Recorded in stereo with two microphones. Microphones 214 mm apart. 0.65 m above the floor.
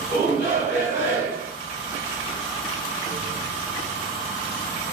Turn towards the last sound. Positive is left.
turn(degrees=-60)  # may be behind; listen again after turning